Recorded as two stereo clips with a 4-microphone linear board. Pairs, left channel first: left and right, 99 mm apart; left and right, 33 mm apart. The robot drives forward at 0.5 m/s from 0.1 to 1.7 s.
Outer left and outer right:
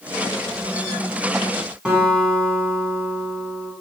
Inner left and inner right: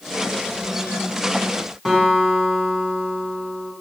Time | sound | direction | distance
1.9 | a guitar | 10° right (ahead or behind) | 1.9 m